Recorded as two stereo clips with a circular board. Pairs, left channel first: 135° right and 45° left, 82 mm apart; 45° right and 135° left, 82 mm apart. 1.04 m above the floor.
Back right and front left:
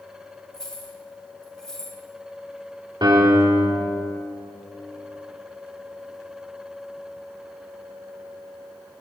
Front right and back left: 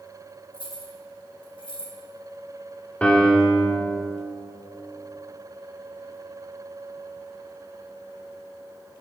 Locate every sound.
0.5 s keys jangling: 50° right, 1.3 m
3.0 s a piano: 30° left, 1.0 m